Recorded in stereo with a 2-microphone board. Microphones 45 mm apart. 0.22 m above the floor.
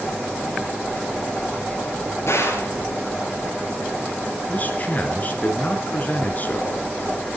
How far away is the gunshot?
About 5 m.